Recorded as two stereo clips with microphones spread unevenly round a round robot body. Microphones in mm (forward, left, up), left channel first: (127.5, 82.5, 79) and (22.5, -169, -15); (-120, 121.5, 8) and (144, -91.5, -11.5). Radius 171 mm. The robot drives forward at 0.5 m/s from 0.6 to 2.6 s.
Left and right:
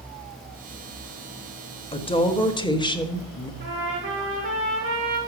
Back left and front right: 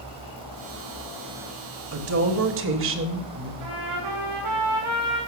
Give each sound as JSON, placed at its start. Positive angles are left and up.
{"t": 1.9, "sound": "a woman speaking", "azimuth_deg": -15, "distance_m": 1.7}
{"t": 3.6, "sound": "a trumpet", "azimuth_deg": -70, "distance_m": 7.5}